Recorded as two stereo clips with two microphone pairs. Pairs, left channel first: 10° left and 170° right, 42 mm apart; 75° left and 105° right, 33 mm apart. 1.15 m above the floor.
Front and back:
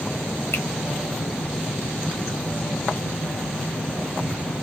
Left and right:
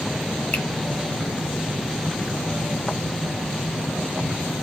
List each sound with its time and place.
0.5 s a finger snap: 40° left, 0.9 m